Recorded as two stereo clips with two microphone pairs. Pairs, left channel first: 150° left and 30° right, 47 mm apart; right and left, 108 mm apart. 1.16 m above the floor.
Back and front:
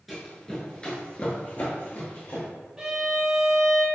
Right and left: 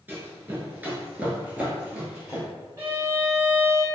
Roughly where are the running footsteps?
Left.